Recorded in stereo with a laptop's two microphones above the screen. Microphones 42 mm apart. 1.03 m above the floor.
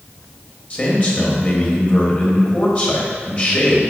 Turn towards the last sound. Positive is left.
turn(degrees=35)  # may be behind; listen again after turning